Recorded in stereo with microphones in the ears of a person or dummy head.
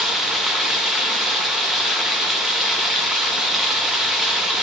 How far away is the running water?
About 0.8 m.